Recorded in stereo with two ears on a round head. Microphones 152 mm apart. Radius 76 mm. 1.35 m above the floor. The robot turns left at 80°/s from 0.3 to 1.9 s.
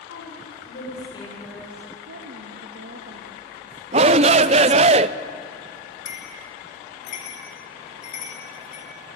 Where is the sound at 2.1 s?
80° right, 1.8 m.